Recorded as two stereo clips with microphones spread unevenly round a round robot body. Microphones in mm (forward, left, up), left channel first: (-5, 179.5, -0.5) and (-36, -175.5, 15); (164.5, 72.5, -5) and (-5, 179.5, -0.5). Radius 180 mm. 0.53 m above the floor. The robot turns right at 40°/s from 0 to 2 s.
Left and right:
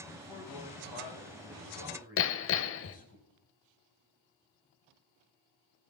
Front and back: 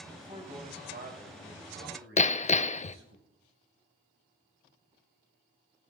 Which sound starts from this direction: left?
A man speaking, at 0.1 s.